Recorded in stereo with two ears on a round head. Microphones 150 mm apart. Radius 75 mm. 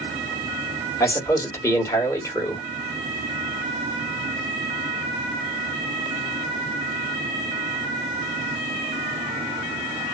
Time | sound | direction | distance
1.0 | a man speaking | 15° left (ahead or behind) | 1.5 m